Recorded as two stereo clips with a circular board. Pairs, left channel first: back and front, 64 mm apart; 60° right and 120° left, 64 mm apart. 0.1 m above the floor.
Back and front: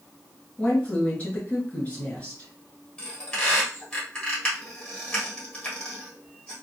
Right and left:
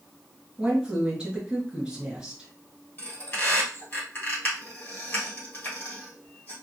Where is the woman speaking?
170° left, 1.3 m.